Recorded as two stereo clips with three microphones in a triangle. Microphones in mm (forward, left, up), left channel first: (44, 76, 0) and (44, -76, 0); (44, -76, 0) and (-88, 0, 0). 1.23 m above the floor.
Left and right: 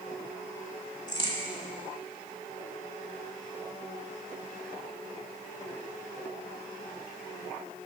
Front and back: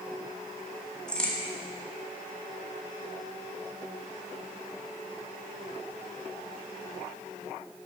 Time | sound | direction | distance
1.1 | a crack | 50° left | 1.3 m